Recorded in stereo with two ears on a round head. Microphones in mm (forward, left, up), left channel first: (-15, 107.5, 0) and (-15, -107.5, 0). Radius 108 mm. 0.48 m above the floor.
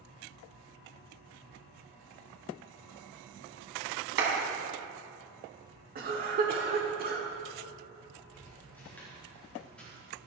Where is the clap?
50° right (ahead or behind), 3.5 m.